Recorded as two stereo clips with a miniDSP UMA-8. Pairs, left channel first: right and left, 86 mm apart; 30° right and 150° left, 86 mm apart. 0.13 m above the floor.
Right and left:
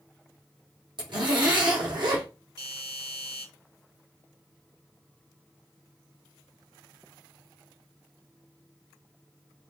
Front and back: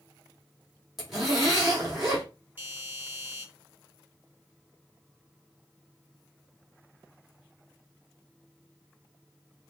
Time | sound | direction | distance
1.0 | a zipper | 65° left | 3 m
2.6 | a doorbell | 85° left | 3 m